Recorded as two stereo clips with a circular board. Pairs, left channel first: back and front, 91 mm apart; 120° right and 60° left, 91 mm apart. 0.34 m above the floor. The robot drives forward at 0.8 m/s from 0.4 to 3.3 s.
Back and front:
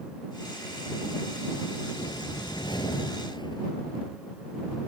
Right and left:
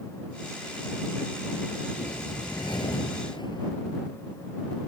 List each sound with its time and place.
2.0 s a whoosh: 145° right; by 3.7 s 150° right